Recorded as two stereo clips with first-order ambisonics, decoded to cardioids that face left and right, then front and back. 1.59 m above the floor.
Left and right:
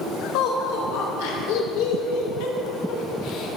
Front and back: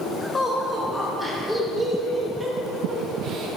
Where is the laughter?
75° left, 3 m; by 3.6 s 140° left, 1.3 m.